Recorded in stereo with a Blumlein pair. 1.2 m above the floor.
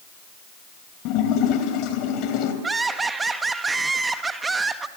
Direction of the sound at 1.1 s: 40° left.